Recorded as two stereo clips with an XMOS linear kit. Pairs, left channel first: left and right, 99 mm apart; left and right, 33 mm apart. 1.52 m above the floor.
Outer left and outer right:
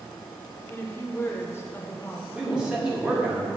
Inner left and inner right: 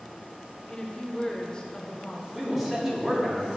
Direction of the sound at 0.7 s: 25° left (ahead or behind).